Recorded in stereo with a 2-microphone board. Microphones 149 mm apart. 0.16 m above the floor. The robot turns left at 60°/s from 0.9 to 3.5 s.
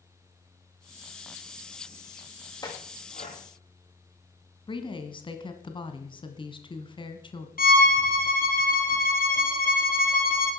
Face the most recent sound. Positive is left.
turn(degrees=75)  # may be behind; listen again after turning